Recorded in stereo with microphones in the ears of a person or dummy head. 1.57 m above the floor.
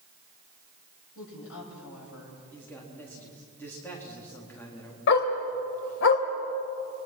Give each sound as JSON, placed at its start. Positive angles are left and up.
{"t": 1.1, "sound": "a woman speaking", "side_deg": 85, "distance_m": 8.5}
{"t": 2.5, "sound": "a man speaking", "side_deg": 10, "distance_m": 4.0}
{"t": 5.1, "sound": "a dog barking", "side_deg": 65, "distance_m": 2.5}